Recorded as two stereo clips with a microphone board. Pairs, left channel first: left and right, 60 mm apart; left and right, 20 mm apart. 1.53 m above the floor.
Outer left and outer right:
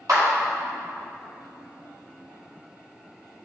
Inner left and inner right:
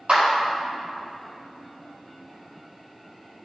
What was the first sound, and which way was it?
A clap, 70° right (ahead or behind).